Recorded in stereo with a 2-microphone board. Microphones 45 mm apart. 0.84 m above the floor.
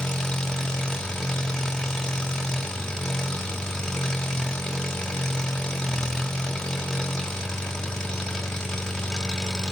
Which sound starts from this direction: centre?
An engine running, at 0.0 s.